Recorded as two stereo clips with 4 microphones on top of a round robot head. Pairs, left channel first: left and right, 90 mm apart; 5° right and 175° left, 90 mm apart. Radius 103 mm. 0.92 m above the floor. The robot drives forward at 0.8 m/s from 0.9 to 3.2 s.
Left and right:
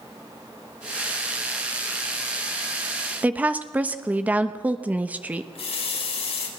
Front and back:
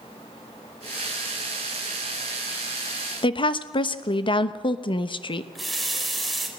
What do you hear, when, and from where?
3.2 s a woman speaking: 20° right, 1.2 m
5.5 s a running tap: 85° left, 3.5 m